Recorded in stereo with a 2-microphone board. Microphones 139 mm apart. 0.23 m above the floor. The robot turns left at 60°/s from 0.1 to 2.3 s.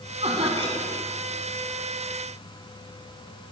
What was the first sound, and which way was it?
Laughter, 90° right.